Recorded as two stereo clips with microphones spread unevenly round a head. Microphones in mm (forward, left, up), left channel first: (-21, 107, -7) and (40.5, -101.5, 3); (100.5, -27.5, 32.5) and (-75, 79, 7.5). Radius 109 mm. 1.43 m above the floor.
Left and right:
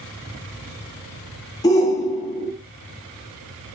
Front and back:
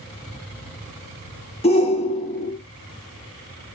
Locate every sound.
1.6 s a shout: 35° left, 0.8 m